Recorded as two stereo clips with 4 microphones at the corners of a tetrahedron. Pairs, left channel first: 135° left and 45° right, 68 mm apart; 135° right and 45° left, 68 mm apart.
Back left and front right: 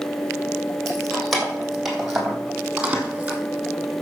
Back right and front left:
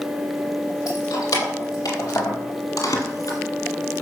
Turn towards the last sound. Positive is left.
turn(degrees=-115)